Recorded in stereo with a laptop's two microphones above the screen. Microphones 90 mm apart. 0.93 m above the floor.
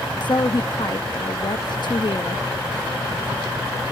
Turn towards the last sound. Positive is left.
turn(degrees=60)  # may be behind; listen again after turning